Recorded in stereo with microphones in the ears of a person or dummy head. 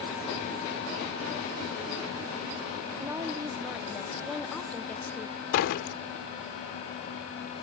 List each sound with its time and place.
3.0 s a woman speaking: 20° right (ahead or behind); by 5.4 s 15° left (ahead or behind)
5.5 s a door slam: 65° left (ahead or behind)